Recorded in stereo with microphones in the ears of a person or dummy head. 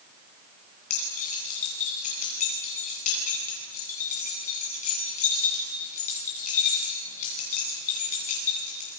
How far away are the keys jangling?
About 10 m.